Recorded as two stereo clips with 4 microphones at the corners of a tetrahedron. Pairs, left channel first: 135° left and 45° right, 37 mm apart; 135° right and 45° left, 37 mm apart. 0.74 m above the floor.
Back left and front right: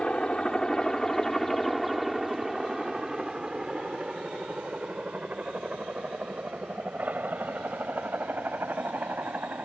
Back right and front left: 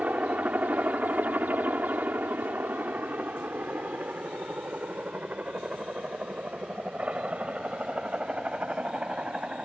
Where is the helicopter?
80° left; by 9.7 s 20° right.